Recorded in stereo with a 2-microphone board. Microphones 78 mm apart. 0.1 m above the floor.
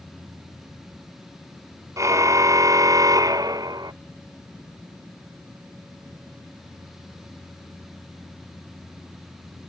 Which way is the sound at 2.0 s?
45° right (ahead or behind).